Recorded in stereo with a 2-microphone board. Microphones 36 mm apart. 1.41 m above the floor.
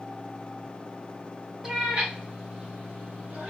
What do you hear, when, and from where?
1.6 s a cat meowing: 20° right (ahead or behind), 0.8 m; by 3.5 s 45° right (ahead or behind), 1.2 m